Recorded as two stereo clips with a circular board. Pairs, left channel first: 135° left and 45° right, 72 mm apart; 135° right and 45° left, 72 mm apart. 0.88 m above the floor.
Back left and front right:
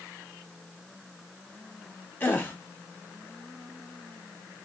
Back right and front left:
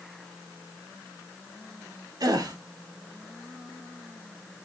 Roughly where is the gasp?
Left.